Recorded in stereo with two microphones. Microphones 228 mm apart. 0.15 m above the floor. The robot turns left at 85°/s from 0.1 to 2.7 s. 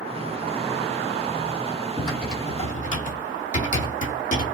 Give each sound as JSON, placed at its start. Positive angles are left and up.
{"t": 2.0, "sound": "typing on a keyboard", "side_deg": -25, "distance_m": 1.2}